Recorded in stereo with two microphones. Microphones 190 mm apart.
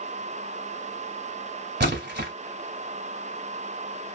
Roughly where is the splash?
Right.